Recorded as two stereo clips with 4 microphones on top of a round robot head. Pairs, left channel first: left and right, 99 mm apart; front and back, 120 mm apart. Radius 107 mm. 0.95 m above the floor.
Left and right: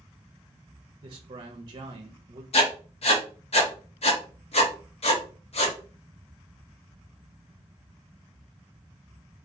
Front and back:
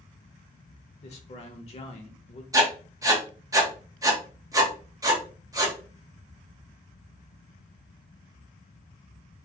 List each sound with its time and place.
1.0 s a man speaking: 45° right, 0.5 m
2.5 s writing: 115° left, 1.0 m